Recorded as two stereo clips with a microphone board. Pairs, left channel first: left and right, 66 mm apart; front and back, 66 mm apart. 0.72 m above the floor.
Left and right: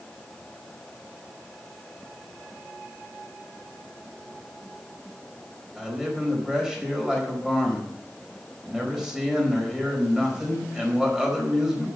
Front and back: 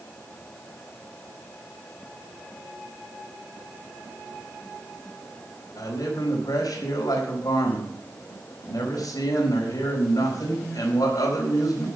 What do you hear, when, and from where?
5.8 s a man speaking: 10° right, 4.5 m